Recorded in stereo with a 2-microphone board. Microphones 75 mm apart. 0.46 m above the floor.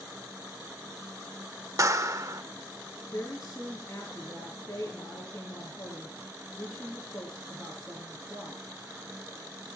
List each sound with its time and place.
1.8 s a clap: 45° right (ahead or behind), 1.0 m
3.1 s a woman speaking: 20° left (ahead or behind), 5 m